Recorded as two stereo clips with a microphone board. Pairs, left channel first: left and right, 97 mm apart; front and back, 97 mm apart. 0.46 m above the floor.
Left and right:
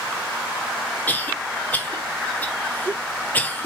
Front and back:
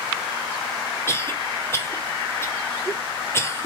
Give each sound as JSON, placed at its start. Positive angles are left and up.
{"t": 1.1, "sound": "a cough", "azimuth_deg": 35, "distance_m": 0.8}